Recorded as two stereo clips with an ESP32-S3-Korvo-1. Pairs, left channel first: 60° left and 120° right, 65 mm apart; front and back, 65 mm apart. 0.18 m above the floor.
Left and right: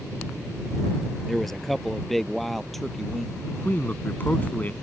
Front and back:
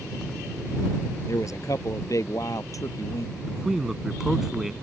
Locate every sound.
1.3 s a man speaking: 25° right
3.5 s a man speaking: 100° left